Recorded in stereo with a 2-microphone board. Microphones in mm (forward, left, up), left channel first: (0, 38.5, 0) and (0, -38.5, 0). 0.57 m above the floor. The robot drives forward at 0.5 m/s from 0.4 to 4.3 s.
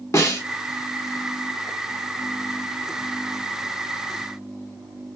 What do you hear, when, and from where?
0.1 s a snare drum: 40° left (ahead or behind), 1.6 m